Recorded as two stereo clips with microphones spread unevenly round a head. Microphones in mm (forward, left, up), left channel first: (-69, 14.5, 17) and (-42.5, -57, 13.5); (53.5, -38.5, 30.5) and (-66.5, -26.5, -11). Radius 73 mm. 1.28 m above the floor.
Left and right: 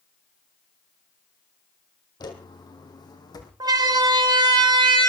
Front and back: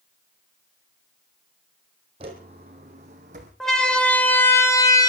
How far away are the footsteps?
About 2.5 m.